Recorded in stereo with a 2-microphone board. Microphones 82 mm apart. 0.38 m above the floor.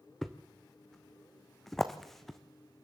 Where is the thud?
5° left (ahead or behind), 1.4 m.